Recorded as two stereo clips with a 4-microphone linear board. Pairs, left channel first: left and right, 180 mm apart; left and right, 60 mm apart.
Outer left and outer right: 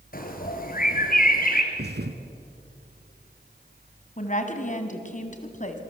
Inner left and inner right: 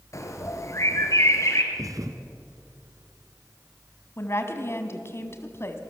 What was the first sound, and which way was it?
A bird, 50° left (ahead or behind).